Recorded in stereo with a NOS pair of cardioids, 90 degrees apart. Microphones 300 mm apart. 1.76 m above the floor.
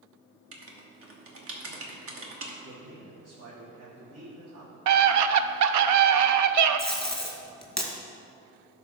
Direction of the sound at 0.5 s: 45° right.